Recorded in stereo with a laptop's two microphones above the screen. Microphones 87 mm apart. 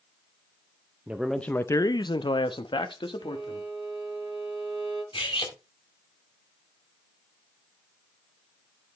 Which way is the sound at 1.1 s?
15° right (ahead or behind).